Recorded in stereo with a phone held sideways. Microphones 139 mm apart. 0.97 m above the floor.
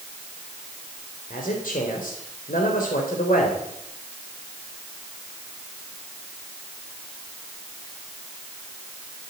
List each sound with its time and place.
1.3 s a man speaking: 80° left, 3.5 m